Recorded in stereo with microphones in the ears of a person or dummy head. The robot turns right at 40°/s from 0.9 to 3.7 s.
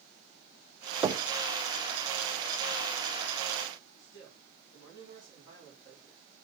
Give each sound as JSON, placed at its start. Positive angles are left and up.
{"t": 1.0, "sound": "knocking", "side_deg": -20, "distance_m": 0.7}
{"t": 4.0, "sound": "a man speaking", "side_deg": 20, "distance_m": 5.0}